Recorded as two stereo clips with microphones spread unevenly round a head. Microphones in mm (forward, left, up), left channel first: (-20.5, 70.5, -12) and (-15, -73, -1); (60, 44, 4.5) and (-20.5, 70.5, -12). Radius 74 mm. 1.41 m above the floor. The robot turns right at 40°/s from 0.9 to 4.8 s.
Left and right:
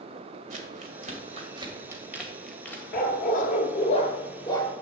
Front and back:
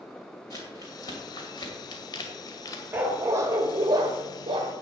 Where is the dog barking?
90° left, 1.7 m; by 4.7 s 160° left, 1.7 m.